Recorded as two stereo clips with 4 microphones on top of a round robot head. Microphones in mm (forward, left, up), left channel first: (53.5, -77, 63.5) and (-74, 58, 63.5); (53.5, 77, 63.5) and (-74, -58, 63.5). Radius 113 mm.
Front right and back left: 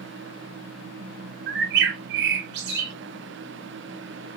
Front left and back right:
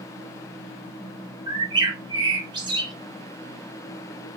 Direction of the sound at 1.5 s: 160° left.